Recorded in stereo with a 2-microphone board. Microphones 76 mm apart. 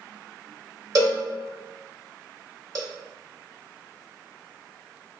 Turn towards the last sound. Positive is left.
turn(degrees=-45)  # may be behind; listen again after turning